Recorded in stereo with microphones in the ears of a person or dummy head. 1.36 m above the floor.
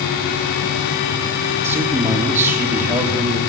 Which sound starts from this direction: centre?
A man speaking, at 1.6 s.